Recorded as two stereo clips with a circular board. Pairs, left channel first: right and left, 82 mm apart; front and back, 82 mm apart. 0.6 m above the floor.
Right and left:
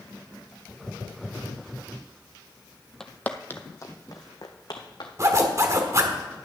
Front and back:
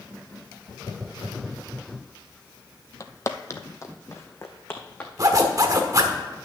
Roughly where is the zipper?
Behind left.